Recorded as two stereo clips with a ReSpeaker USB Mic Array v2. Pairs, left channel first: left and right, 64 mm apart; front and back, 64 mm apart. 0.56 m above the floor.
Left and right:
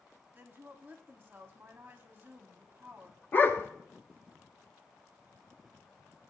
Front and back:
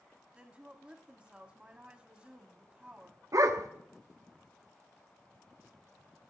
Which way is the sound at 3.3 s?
145° left.